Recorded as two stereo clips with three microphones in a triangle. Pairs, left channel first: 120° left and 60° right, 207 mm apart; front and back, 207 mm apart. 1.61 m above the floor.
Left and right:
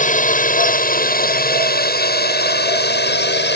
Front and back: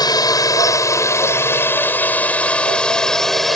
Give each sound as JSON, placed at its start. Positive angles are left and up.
{"t": 0.0, "sound": "a drone", "azimuth_deg": 70}